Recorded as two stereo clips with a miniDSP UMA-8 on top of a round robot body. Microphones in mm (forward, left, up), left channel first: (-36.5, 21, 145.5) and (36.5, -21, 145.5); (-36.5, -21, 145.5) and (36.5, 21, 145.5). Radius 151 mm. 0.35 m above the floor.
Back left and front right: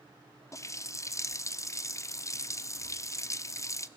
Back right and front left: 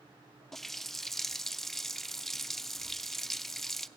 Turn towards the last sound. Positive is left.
turn(degrees=125)